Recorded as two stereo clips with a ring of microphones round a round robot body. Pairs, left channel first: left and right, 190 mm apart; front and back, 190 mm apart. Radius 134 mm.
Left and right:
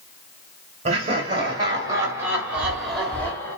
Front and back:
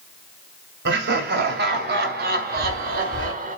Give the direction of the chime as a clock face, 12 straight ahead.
5 o'clock.